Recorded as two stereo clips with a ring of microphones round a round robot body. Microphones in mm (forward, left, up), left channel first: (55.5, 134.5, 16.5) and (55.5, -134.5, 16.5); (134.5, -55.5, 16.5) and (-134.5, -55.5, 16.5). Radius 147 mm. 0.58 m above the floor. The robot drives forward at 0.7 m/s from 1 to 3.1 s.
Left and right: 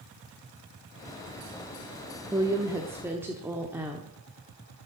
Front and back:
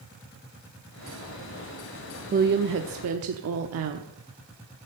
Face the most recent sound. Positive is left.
turn(degrees=-170)